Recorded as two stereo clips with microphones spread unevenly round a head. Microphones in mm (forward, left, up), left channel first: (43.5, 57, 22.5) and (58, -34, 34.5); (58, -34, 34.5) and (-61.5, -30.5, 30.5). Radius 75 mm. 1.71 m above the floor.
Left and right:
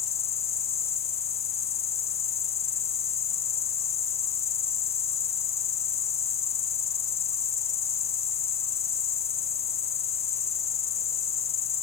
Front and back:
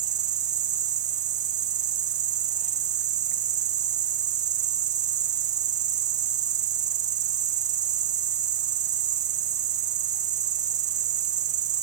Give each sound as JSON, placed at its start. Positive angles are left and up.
{"t": 0.0, "sound": "an insect", "azimuth_deg": 140}